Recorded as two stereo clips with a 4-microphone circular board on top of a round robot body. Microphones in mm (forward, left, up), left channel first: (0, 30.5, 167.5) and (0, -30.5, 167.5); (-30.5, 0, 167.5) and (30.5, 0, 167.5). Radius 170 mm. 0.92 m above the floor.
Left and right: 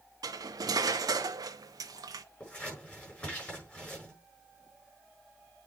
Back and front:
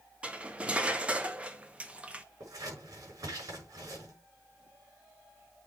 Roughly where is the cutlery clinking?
Right.